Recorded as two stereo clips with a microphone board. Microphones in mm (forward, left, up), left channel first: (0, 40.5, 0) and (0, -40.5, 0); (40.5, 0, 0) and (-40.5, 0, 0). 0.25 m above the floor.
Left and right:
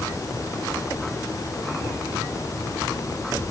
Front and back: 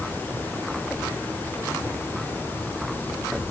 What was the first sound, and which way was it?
Only background noise.